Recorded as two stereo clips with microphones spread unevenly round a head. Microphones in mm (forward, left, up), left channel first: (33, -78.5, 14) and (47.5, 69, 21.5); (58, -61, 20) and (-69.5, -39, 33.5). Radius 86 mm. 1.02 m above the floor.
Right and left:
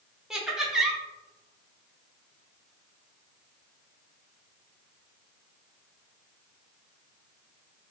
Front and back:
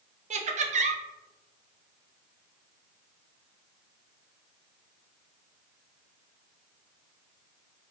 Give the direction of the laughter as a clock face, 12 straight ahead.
6 o'clock.